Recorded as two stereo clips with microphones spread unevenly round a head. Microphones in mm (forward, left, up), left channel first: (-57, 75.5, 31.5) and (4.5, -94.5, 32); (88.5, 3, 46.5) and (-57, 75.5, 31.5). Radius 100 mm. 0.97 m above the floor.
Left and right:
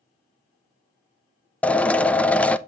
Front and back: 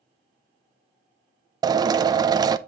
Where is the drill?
170° right, 0.6 m.